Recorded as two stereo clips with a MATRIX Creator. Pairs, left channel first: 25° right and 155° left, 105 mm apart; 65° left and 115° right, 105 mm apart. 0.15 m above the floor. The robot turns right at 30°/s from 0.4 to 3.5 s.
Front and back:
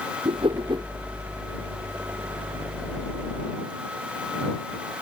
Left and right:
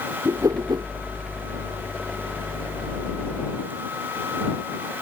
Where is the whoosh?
170° right; by 0.9 s 155° right.